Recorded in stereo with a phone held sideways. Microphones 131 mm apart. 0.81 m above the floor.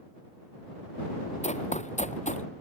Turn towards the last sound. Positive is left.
turn(degrees=70)  # may be behind; listen again after turning